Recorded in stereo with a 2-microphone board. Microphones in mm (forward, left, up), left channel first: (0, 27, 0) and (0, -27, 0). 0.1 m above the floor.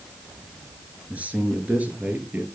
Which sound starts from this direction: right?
A man speaking, at 1.1 s.